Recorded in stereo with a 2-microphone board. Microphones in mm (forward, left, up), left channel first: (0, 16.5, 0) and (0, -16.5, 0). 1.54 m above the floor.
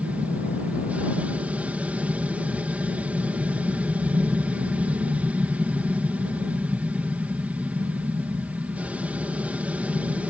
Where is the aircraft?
45° right (ahead or behind).